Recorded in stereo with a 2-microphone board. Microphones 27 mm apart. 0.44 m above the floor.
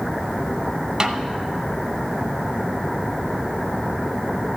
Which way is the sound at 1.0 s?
30° right (ahead or behind).